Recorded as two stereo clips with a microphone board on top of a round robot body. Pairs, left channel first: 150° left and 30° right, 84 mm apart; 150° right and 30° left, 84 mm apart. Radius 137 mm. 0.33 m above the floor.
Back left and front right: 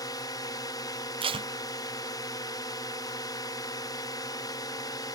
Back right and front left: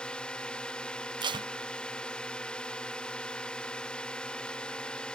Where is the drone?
135° left.